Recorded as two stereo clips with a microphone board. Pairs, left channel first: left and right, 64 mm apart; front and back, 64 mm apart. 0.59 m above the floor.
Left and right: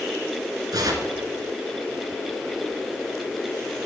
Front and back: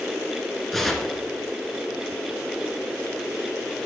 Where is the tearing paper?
85° right, 1.6 m.